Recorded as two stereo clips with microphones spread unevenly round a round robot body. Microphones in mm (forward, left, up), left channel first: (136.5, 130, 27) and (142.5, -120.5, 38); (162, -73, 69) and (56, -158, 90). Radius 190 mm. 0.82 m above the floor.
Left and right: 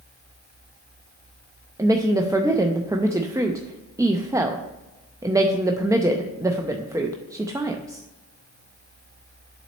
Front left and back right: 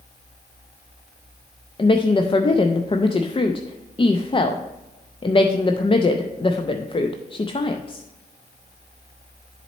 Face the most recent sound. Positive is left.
turn(degrees=-10)